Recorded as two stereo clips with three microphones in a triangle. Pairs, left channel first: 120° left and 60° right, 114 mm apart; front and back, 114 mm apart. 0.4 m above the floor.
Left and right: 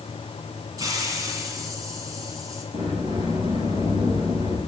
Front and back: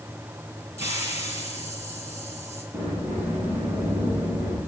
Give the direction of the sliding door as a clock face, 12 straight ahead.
3 o'clock.